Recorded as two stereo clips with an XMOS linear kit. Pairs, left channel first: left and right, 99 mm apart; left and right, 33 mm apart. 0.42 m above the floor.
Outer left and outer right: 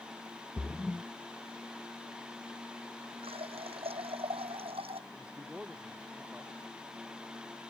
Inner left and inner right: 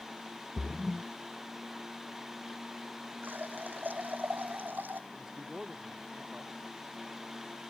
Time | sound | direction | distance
0.6 | a splash | 15° left (ahead or behind) | ?
3.2 | a running tap | 85° right | ?
5.1 | a man speaking | 15° right (ahead or behind) | ?